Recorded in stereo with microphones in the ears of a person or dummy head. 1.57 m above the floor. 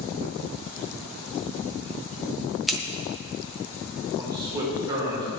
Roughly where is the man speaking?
Right.